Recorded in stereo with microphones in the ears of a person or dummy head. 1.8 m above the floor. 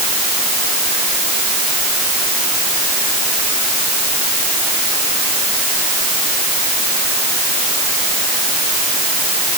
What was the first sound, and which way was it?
Only background noise.